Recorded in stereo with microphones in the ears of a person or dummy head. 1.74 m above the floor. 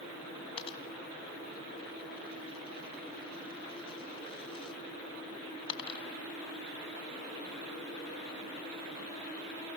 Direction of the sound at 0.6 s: 30° left (ahead or behind).